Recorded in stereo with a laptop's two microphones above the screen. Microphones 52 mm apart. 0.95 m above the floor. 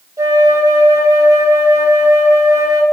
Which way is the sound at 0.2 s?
70° right (ahead or behind).